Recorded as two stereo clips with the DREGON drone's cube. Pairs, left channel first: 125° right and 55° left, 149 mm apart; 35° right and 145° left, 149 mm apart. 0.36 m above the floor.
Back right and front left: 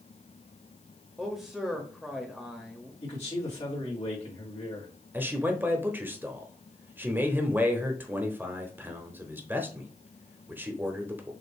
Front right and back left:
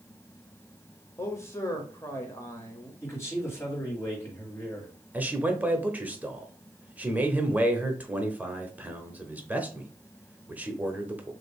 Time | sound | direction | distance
1.2 | a man speaking | 25° right | 0.8 m
3.0 | a man speaking | 100° right | 2 m
5.1 | a man speaking | 95° left | 0.8 m